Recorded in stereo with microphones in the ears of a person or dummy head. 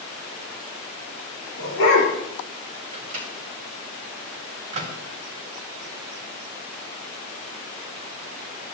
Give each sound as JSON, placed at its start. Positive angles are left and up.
{"t": 1.6, "sound": "a dog barking", "side_deg": 60, "distance_m": 8.0}
{"t": 2.9, "sound": "a microwave", "side_deg": -30, "distance_m": 2.5}